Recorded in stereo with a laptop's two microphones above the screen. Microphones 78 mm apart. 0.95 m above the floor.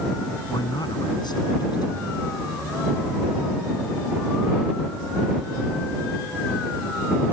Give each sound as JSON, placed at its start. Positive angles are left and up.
{"t": 0.5, "sound": "a man speaking", "side_deg": 65}